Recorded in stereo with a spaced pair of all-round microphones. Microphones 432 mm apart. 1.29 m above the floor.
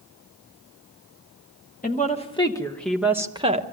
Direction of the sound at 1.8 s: 20° left (ahead or behind).